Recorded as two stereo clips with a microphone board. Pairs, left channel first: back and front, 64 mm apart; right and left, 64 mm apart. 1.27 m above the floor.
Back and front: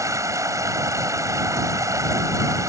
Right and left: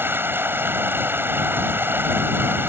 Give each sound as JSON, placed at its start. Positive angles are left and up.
{"t": 0.0, "sound": "running water", "azimuth_deg": 35}